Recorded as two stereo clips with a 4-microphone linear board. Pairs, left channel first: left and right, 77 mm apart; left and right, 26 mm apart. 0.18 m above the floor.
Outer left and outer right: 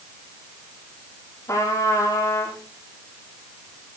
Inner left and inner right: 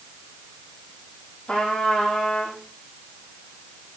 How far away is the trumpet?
About 5.5 m.